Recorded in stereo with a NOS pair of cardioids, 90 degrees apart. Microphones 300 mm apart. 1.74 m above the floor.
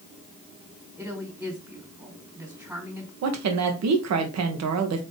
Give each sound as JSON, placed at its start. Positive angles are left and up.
{"t": 1.0, "sound": "a woman speaking", "azimuth_deg": -5, "distance_m": 3.0}
{"t": 3.2, "sound": "a woman speaking", "azimuth_deg": -60, "distance_m": 1.5}